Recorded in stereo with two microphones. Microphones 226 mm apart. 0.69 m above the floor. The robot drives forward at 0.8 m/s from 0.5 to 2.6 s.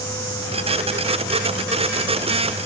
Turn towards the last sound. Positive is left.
No sound to turn to.